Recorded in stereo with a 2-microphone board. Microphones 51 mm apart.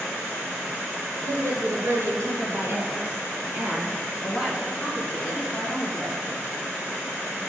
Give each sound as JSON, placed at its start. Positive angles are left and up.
{"t": 1.2, "sound": "a woman speaking", "side_deg": -65, "distance_m": 2.5}